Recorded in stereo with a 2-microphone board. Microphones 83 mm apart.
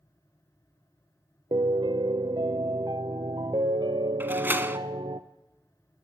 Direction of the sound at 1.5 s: 75° right (ahead or behind).